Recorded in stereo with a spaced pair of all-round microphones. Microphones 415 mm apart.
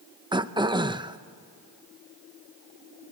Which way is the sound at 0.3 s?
10° right (ahead or behind).